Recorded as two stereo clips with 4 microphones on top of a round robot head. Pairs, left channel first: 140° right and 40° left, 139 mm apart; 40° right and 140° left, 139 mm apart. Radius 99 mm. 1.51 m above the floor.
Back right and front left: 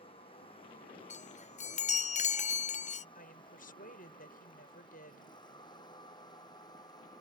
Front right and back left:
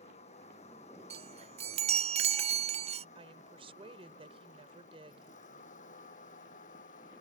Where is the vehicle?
85° right; by 7.2 s 75° right.